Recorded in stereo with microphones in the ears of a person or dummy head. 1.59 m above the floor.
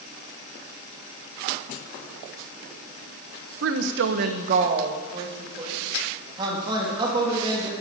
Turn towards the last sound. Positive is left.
turn(degrees=-30)  # may be behind; listen again after turning